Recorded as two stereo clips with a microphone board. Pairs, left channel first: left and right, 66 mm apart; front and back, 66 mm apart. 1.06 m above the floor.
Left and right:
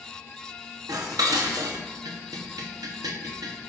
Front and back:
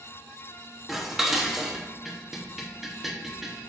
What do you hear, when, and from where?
0.9 s dishes clattering: 95° right, 0.8 m